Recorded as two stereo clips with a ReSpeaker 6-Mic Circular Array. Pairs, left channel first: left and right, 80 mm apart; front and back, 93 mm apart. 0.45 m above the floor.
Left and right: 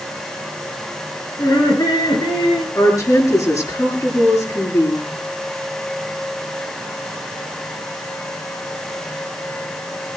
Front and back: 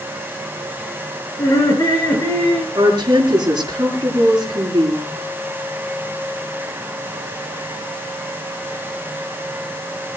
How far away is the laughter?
About 7 m.